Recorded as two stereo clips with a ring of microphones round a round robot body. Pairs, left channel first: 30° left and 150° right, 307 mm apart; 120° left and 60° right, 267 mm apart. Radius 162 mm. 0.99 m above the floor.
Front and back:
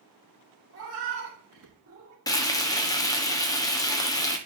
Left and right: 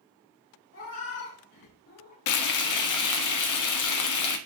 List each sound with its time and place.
0.7 s a cat meowing: 165° left, 4 m; by 2.2 s 160° left, 3.5 m
2.3 s frying: 110° left, 1.2 m